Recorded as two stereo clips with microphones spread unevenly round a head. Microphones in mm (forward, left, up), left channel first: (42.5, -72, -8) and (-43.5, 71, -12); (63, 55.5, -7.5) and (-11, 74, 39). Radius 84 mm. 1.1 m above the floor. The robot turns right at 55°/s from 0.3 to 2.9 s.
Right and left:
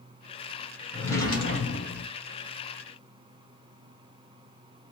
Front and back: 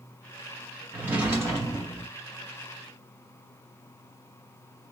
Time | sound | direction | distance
0.9 | a drawer | 145° right | 1.4 m